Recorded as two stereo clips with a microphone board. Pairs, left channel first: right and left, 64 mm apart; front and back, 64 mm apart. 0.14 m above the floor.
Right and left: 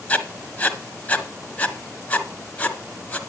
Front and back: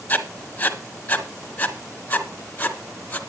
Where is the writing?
45° right, 1.5 m.